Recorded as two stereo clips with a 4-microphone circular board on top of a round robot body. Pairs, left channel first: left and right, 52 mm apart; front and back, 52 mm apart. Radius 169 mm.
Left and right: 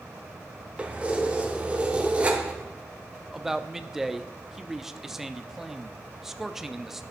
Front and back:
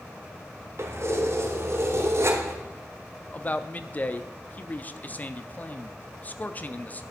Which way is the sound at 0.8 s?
155° right.